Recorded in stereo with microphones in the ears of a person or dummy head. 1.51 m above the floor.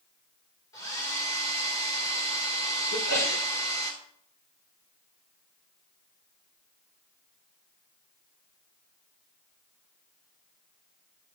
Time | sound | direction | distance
0.7 | a hair dryer | 20° left (ahead or behind) | 2.5 m
2.9 | a sneeze | 80° left | 4.5 m